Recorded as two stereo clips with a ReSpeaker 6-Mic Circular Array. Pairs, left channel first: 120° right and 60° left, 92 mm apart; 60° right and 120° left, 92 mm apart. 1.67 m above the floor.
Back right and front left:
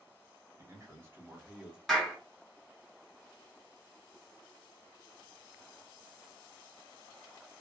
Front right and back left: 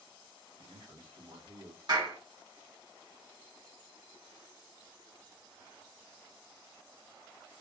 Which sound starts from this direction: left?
A man speaking, at 0.6 s.